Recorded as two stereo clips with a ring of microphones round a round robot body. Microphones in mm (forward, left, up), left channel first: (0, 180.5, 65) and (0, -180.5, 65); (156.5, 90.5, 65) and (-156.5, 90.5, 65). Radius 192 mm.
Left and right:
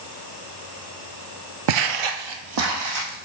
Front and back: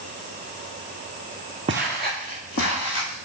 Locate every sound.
1.7 s footsteps: 110° right, 0.6 m; by 3.3 s 50° right, 2 m